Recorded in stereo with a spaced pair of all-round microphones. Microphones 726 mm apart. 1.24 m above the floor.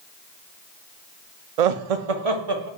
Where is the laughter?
65° right (ahead or behind), 0.5 m; by 2.7 s 30° right (ahead or behind), 0.8 m.